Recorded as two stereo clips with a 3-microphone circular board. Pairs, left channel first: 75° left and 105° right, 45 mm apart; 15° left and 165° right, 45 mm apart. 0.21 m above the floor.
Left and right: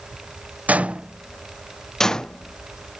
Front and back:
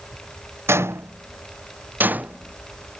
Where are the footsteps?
155° right; by 3.0 s 135° left.